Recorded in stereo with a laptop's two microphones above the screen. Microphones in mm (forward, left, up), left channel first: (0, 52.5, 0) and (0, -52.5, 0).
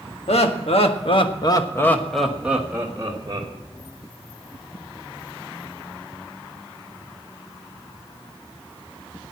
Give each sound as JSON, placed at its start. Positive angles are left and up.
{"t": 0.3, "sound": "laughter", "side_deg": 80, "distance_m": 1.8}